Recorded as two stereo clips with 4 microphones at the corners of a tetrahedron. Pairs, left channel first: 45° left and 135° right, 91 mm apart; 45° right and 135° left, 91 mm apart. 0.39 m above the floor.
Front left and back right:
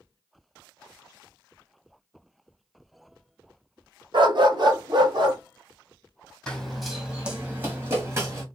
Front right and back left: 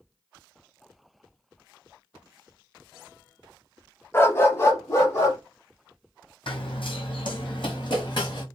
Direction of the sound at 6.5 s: 35° right.